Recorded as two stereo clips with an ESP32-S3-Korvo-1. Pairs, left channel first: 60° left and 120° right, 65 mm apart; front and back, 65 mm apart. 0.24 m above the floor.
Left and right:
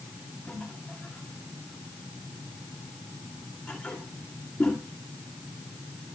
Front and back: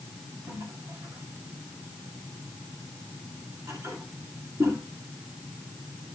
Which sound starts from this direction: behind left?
A toilet flushing, at 0.5 s.